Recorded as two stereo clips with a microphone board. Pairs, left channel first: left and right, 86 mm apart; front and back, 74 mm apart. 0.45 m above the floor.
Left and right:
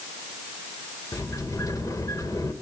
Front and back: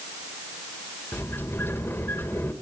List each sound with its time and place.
1.1 s a sliding door: 50° left, 1.4 m